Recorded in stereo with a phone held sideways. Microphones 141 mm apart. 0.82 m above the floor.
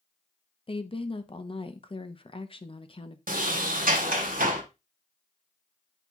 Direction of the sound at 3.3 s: 85° right.